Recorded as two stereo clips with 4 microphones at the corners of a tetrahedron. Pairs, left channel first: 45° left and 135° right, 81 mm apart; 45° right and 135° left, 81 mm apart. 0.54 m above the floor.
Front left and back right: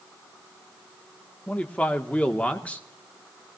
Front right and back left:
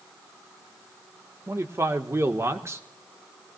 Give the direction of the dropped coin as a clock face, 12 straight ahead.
No dropped coin in this recording.